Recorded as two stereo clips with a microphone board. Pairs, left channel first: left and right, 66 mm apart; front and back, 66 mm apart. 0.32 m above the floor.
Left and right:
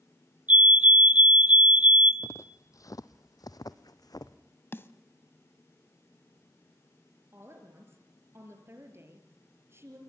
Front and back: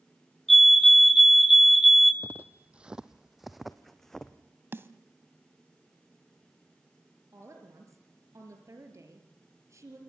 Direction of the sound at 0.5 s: 85° right.